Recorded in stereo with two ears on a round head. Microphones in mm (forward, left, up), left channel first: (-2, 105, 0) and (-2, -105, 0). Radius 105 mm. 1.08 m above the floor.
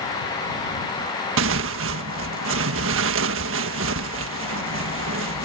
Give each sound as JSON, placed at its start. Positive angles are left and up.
{"t": 1.4, "sound": "tearing paper", "side_deg": -60}